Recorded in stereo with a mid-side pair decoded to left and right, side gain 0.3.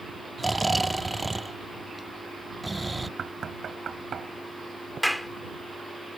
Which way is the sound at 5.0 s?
15° left.